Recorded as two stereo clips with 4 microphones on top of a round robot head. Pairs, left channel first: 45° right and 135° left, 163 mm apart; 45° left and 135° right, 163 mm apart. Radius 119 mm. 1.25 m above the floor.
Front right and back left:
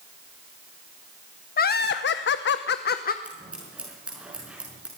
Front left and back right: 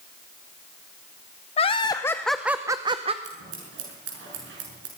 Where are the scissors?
140° right, 6 m.